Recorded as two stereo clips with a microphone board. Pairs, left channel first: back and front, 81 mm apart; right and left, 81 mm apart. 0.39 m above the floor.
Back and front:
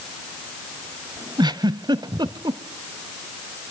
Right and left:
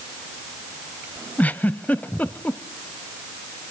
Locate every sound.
1.4 s a giggle: 20° right, 1.0 m